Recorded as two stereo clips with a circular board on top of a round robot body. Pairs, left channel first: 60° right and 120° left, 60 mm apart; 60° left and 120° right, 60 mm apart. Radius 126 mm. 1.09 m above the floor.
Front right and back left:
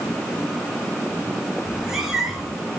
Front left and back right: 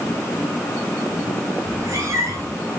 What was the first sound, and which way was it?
A cat meowing, 155° right.